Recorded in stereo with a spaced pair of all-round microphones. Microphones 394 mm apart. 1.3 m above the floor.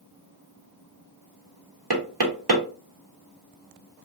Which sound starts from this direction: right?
Knocking, at 1.9 s.